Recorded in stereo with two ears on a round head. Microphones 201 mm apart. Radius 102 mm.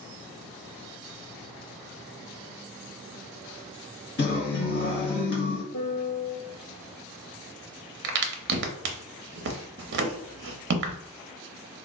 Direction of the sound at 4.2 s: 45° left (ahead or behind).